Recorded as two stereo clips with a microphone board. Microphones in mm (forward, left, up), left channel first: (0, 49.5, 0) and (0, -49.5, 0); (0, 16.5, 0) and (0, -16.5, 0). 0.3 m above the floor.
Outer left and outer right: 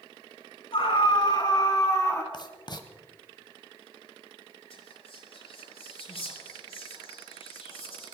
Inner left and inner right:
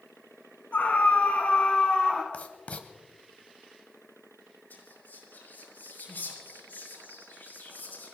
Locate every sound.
0.7 s a scream: 60° left (ahead or behind), 3.5 m; by 2.2 s 25° left (ahead or behind), 3 m
2.3 s writing: 45° left (ahead or behind), 1.3 m
4.7 s whispering: 80° left, 7 m